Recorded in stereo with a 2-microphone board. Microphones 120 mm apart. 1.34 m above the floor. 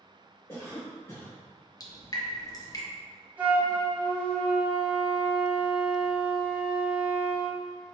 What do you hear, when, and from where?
0.5 s a cough: 20° left (ahead or behind), 0.8 m
1.8 s dripping: 30° left (ahead or behind), 0.7 m
3.4 s a flute: 15° right (ahead or behind), 1.4 m